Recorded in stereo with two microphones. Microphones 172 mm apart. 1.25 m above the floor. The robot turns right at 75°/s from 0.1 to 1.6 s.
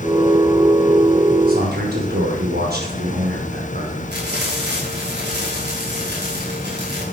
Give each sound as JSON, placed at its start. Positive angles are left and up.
{"t": 1.5, "sound": "a man speaking", "side_deg": -55, "distance_m": 5.5}
{"t": 4.1, "sound": "frying", "side_deg": -75, "distance_m": 7.5}